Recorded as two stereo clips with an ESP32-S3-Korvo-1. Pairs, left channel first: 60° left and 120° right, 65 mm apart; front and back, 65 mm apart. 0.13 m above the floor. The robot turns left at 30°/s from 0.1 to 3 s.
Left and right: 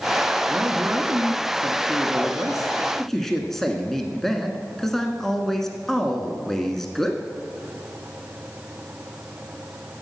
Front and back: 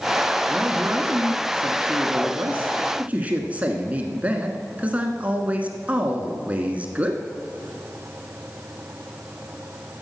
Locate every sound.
0.5 s a man speaking: 145° right, 1.2 m; by 7.2 s 140° left, 1.2 m